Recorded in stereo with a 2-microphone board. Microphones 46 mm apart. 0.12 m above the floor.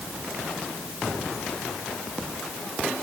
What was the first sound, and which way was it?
Only background noise.